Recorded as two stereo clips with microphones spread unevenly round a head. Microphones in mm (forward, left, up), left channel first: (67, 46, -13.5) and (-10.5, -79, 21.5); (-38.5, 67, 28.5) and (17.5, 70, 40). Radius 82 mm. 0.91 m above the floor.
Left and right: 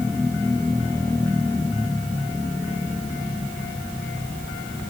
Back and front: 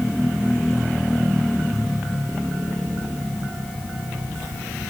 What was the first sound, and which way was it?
Only background noise.